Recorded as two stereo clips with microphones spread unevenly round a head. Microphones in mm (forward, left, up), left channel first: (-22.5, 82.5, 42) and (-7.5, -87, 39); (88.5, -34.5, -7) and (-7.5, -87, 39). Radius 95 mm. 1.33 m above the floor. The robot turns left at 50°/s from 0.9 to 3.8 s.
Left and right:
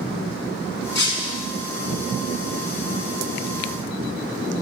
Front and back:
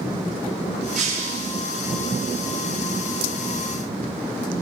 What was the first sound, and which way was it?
Breaking glass, 125° left.